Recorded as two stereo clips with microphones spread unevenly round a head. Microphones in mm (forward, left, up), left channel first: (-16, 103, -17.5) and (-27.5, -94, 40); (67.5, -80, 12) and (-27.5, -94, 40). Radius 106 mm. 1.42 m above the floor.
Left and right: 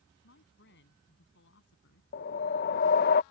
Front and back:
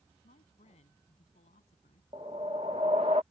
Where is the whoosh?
135° left.